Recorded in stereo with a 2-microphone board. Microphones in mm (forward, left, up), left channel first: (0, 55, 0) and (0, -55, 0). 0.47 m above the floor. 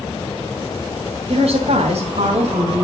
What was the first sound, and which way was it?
A woman speaking, 65° right (ahead or behind).